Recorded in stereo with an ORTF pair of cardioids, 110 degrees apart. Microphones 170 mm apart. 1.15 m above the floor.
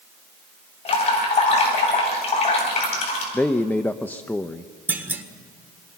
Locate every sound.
0.8 s dripping: 40° left, 9 m
3.3 s a man speaking: 10° left, 0.7 m
4.9 s a clunk: 10° right, 1.6 m